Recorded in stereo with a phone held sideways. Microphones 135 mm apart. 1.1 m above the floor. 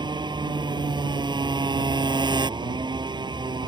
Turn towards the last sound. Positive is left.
turn(degrees=-35)  # may be behind; listen again after turning